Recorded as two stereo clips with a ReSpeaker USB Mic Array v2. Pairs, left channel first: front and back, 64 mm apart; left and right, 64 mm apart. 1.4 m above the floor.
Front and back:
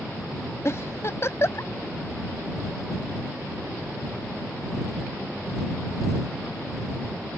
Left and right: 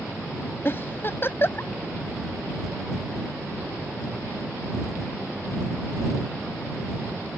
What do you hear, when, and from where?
0.7 s a giggle: 40° left